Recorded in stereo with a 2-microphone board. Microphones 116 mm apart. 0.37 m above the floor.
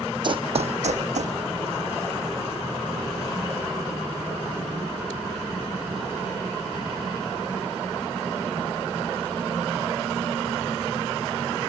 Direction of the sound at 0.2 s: 40° right (ahead or behind).